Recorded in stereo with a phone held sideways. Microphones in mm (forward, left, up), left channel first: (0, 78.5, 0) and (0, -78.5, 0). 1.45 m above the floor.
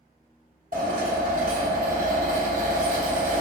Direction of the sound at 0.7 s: 60° right (ahead or behind).